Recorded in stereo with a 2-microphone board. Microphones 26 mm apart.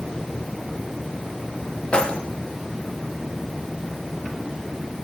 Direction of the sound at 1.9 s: 40° left (ahead or behind).